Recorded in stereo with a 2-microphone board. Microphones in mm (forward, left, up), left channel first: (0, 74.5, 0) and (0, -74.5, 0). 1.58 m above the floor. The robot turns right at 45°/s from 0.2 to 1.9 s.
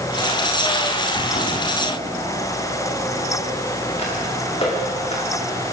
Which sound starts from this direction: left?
Footsteps, at 1.1 s.